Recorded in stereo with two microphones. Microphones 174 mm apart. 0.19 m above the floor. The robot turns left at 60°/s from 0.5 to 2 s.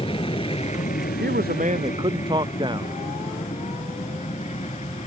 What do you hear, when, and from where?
0.0 s an aircraft: 30° left (ahead or behind); by 5.1 s 40° left (ahead or behind)
1.2 s a man speaking: 105° right; by 3.0 s 150° right